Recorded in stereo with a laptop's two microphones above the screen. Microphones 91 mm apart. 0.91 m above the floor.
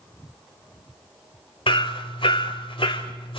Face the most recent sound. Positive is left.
turn(degrees=75)  # may be behind; listen again after turning